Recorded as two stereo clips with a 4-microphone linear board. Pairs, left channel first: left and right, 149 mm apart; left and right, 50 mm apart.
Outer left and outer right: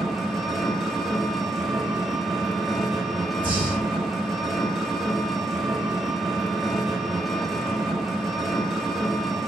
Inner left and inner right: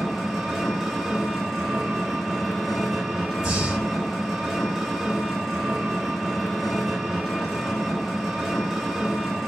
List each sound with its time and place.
0.0 s an engine running: centre (ahead or behind), 1.2 m
3.4 s breathing: 15° right (ahead or behind), 2.5 m